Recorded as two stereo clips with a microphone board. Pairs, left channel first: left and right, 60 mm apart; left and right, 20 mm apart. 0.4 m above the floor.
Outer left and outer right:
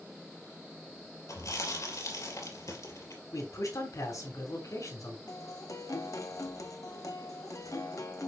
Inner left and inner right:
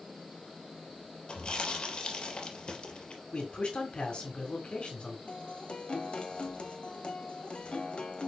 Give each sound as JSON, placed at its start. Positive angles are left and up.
{"t": 1.3, "sound": "chewing", "side_deg": 60, "distance_m": 3.0}
{"t": 3.3, "sound": "a man speaking", "side_deg": 65, "distance_m": 3.5}
{"t": 5.3, "sound": "a guitar", "side_deg": 65, "distance_m": 1.4}